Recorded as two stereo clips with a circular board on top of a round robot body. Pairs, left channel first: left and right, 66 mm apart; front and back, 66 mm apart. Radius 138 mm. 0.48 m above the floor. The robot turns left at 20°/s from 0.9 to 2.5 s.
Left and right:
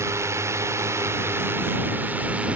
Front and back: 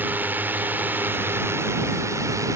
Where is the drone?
125° right; by 2.6 s 155° right.